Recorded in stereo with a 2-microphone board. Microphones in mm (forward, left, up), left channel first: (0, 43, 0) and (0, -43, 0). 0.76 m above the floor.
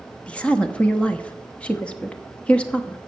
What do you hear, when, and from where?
0.3 s a woman speaking: 15° left (ahead or behind), 0.9 m